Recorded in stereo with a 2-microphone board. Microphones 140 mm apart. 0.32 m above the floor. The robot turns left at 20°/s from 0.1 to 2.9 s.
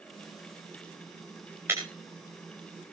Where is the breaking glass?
15° right (ahead or behind), 6.5 m.